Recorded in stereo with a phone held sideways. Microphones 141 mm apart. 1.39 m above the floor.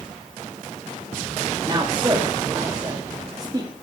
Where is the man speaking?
25° right (ahead or behind), 2.5 m.